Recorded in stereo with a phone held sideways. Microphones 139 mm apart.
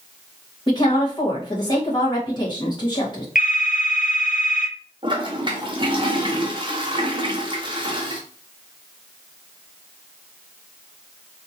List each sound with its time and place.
0.7 s a woman speaking: 30° left (ahead or behind), 1.8 m
3.4 s a phone ringing: 70° left (ahead or behind), 0.8 m
5.0 s a toilet flushing: 35° right (ahead or behind), 0.8 m